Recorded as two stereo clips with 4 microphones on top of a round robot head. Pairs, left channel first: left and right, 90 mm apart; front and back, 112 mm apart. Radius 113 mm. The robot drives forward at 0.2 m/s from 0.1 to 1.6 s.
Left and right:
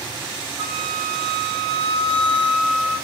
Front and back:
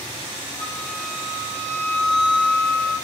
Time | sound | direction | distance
0.6 | a flute | 65° right | 1.4 m